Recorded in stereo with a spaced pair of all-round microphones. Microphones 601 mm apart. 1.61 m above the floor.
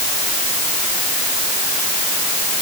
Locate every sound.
Only background noise.